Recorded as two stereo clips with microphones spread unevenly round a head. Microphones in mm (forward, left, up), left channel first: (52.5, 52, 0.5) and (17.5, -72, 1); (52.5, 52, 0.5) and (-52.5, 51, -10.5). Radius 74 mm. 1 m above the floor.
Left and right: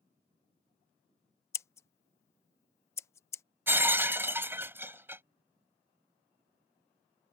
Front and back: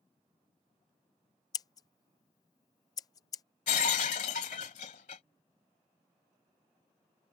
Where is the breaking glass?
35° right.